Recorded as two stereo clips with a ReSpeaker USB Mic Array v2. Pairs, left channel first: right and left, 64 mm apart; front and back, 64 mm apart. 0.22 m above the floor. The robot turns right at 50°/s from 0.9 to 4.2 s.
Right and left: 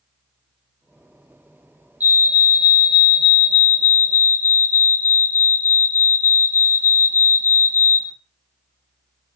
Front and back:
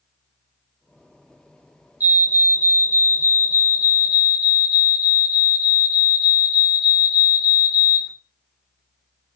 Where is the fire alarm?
140° left, 2.5 m; by 8.1 s 110° right, 2.5 m.